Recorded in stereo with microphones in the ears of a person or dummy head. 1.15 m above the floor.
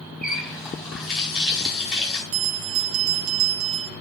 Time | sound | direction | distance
0.2 | a running tap | 5° right (ahead or behind) | 3.5 m
2.3 | a bell | 75° right (ahead or behind) | 1.3 m